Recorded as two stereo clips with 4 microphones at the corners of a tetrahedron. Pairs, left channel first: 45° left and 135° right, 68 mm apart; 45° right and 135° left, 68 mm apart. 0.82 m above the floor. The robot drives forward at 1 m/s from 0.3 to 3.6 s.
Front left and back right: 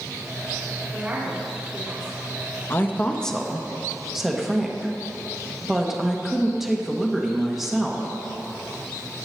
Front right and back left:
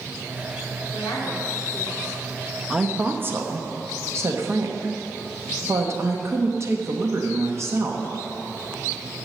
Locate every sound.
0.9 s a woman speaking: 60° right, 2.5 m; by 2.2 s 90° right, 2 m
2.7 s a woman speaking: 60° left, 1.0 m; by 8.1 s 140° left, 1.1 m